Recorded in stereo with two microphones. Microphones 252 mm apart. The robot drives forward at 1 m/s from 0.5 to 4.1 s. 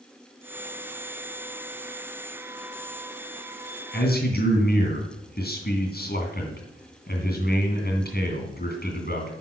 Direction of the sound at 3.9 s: 40° left (ahead or behind).